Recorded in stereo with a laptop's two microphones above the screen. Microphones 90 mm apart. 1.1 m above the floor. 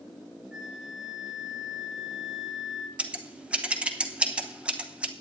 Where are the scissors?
15° right (ahead or behind), 0.8 m.